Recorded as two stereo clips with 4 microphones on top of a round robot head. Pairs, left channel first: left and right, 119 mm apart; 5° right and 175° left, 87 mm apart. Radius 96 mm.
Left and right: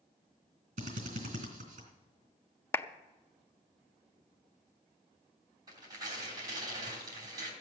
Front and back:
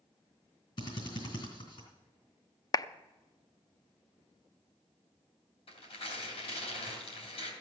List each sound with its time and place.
0.8 s a drill: 50° right, 3 m
2.7 s a clap: 30° left, 0.6 m
5.7 s tearing paper: 25° right, 3 m